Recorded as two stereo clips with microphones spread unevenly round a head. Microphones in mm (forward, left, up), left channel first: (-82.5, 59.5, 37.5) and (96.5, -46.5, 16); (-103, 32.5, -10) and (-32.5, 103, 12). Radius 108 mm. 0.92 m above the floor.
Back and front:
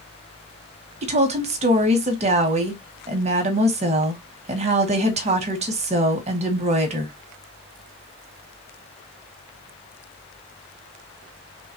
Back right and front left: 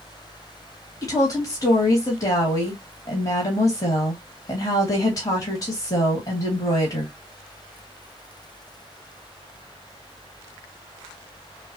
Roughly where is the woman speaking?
Right.